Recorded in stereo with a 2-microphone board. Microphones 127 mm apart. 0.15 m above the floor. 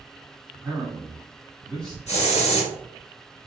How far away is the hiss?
About 1.7 m.